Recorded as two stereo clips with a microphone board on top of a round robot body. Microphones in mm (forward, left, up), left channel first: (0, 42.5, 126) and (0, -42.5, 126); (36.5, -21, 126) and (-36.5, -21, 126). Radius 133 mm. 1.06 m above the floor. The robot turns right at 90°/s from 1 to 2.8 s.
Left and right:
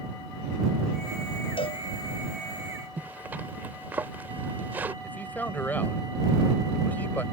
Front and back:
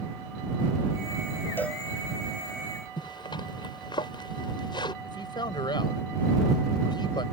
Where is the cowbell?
65° left; by 1.8 s 90° left.